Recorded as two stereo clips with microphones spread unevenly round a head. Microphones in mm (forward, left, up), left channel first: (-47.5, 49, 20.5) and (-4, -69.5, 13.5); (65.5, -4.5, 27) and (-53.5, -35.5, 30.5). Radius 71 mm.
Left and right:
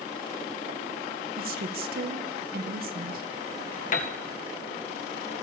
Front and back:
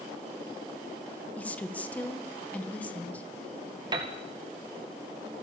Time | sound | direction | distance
1.4 | a woman speaking | 65° right | 1.9 m
3.9 | a piano | 135° left | 2.0 m